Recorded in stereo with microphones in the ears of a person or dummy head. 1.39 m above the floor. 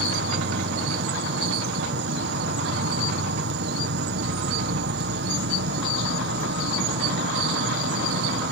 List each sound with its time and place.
0.0 s an insect: 60° right (ahead or behind)